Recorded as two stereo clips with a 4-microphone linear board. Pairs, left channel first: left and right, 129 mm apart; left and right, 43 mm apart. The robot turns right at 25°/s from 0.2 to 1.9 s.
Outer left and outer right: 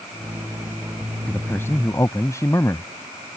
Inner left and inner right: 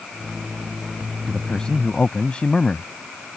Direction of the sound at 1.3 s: 10° left (ahead or behind).